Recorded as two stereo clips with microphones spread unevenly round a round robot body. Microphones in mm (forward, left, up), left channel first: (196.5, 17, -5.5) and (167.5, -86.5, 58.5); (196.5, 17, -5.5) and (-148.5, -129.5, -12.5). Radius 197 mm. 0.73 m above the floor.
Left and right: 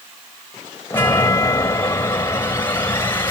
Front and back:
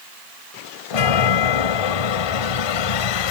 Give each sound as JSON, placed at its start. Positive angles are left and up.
{"t": 0.9, "sound": "a chime", "azimuth_deg": 10}